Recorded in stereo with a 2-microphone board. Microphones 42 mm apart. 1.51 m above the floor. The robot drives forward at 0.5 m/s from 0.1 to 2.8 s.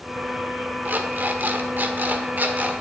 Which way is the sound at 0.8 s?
50° right (ahead or behind).